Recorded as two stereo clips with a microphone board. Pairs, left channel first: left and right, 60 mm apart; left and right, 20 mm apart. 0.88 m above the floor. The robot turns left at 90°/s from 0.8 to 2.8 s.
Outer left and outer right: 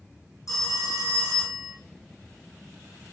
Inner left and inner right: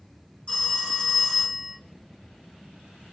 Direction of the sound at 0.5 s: 75° left.